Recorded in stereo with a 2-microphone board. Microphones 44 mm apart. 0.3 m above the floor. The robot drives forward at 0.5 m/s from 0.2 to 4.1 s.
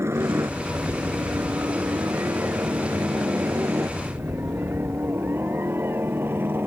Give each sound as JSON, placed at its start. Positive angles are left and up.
{"t": 0.0, "sound": "a helicopter", "side_deg": -70}